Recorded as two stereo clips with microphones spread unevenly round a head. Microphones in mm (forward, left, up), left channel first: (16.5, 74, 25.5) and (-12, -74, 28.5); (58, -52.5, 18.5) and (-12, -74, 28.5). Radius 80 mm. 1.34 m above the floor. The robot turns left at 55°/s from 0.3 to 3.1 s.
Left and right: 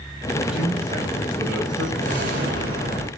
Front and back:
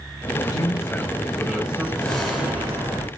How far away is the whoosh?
About 4 m.